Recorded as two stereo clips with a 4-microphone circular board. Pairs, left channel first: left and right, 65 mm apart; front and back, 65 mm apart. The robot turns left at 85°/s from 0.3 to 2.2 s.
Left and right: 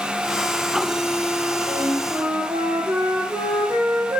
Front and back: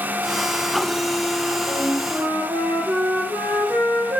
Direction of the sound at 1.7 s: 80° right.